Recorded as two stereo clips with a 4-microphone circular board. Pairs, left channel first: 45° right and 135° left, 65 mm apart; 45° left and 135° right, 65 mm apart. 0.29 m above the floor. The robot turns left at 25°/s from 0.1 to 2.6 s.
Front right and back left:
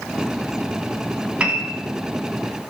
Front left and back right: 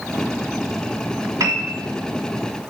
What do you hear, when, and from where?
1.4 s a piano: 155° right, 1.2 m; by 1.7 s 165° right, 1.2 m